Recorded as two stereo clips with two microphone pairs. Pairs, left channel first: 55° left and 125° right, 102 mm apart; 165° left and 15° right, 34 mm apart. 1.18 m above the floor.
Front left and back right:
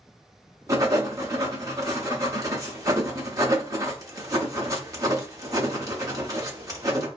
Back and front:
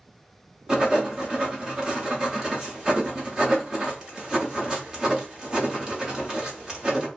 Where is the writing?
80° right, 1.0 m.